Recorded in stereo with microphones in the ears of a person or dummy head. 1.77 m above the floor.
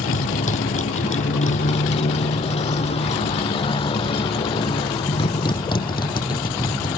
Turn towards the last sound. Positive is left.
turn(degrees=20)  # may be behind; listen again after turning